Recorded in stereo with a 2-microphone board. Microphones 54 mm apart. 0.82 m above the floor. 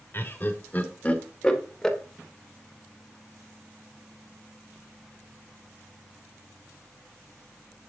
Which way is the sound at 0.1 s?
40° left (ahead or behind).